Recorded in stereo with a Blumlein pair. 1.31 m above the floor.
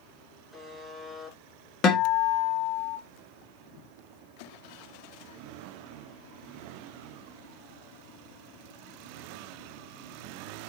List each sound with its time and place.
0.5 s a buzzer: straight ahead, 3.5 m
1.8 s a guitar: 35° left, 1.7 m